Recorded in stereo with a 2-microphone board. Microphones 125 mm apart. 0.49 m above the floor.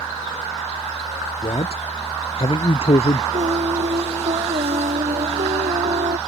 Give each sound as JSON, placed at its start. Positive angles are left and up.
{"t": 1.4, "sound": "a man speaking", "side_deg": 50}
{"t": 3.3, "sound": "singing", "side_deg": -70}